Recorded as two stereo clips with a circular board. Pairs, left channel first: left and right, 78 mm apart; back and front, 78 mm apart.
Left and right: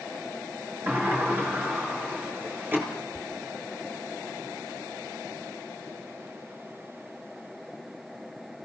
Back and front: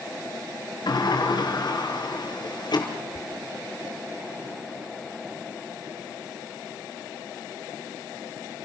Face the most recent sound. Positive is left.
turn(degrees=-75)